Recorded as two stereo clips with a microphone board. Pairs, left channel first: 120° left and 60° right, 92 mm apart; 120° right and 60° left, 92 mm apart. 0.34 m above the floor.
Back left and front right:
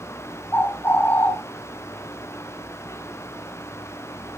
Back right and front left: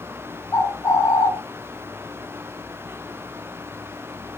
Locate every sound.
0.5 s a bird: 175° right, 2.5 m